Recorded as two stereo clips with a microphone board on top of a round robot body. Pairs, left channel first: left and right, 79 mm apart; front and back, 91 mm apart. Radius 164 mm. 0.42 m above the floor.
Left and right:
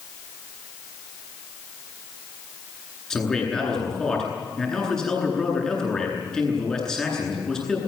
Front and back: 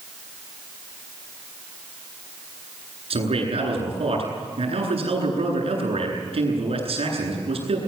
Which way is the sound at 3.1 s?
175° left.